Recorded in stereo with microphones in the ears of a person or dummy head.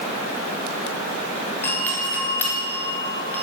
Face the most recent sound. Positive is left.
turn(degrees=10)  # may be behind; listen again after turning